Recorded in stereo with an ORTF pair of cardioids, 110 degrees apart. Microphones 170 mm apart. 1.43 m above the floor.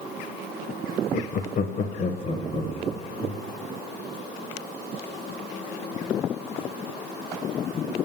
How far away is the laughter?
About 0.8 m.